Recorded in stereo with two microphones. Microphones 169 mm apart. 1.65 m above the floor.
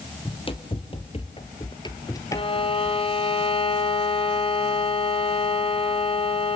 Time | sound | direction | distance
0.2 | running footsteps | 30° left (ahead or behind) | 3 m
2.3 | a violin | 30° left (ahead or behind) | 1.6 m